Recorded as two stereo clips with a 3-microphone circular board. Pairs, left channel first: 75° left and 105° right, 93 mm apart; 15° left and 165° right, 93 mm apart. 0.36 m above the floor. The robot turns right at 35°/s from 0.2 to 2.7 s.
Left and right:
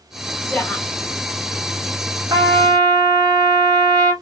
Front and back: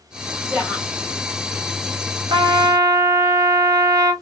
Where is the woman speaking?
120° left, 0.8 m; by 0.9 s 135° left, 0.8 m.